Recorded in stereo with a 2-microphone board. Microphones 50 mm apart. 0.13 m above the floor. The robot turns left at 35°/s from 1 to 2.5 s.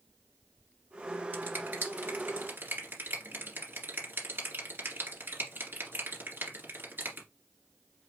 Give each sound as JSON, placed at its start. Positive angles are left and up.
{"t": 1.3, "sound": "a finger snap", "side_deg": -35, "distance_m": 2.0}